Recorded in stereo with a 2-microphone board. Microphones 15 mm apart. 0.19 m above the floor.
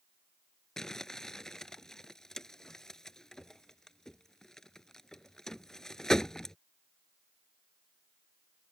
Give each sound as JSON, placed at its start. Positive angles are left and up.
{"t": 0.8, "sound": "crumpling", "side_deg": 35}